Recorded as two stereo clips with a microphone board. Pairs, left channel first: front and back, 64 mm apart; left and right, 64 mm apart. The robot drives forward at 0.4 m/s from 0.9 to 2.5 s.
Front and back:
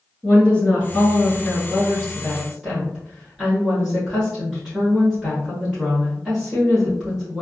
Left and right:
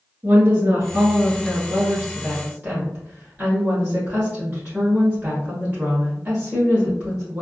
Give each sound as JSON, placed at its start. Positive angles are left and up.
{"t": 0.2, "sound": "a woman speaking", "azimuth_deg": -55, "distance_m": 1.3}